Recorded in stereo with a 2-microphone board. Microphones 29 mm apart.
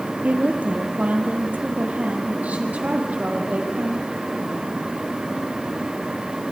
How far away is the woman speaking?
About 3.5 m.